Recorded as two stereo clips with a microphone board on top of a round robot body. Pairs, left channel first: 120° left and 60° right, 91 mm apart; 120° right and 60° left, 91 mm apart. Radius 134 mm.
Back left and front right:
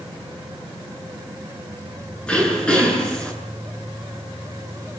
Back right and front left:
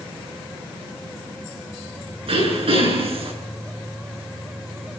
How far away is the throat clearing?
About 9 m.